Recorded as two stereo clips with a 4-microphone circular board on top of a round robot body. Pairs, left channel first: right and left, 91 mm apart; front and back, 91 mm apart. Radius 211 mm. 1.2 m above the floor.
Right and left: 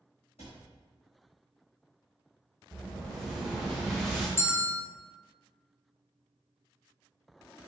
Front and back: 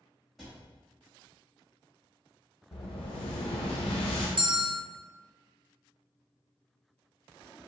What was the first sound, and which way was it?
A cupboard door, 90° right.